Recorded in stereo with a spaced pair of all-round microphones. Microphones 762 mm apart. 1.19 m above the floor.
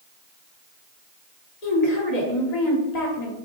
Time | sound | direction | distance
1.6 | a woman speaking | 55° left (ahead or behind) | 1.2 m